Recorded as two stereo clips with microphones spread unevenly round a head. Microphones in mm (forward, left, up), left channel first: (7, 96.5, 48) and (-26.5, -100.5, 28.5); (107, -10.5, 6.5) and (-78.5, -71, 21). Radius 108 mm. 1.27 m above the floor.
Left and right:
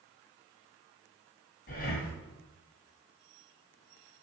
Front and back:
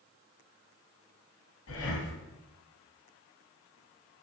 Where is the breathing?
35° left, 2.5 m.